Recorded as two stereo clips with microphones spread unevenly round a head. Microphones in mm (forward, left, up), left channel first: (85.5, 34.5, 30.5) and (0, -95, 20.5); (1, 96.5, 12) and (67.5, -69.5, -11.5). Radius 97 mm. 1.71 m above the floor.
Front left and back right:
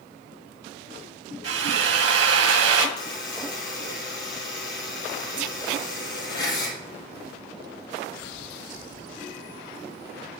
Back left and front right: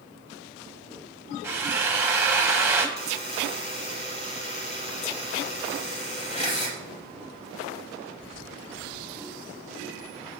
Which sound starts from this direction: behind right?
A drill, at 1.4 s.